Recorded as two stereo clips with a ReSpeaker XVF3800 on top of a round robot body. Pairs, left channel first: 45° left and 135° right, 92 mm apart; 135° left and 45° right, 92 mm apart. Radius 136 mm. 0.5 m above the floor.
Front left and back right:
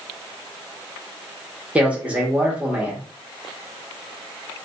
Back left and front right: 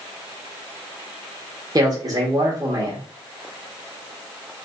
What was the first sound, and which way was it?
A man speaking, 65° right.